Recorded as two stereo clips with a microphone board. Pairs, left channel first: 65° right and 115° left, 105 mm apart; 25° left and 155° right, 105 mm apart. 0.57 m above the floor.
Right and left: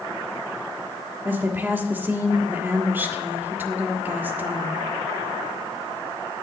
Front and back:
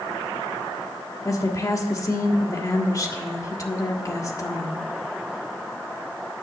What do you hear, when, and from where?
1.2 s a woman speaking: 55° left, 1.5 m